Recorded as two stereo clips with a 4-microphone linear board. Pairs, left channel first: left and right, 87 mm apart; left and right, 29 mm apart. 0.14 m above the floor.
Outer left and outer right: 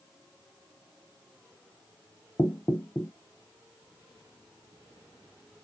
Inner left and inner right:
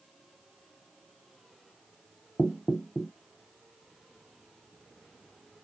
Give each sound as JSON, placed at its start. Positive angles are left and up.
{"t": 2.4, "sound": "knocking", "side_deg": 30, "distance_m": 0.8}